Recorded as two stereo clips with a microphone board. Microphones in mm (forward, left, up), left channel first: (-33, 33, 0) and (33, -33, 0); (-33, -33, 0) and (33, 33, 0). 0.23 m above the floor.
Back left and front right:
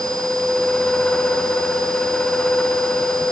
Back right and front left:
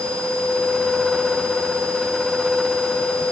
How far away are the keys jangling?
I don't hear keys jangling.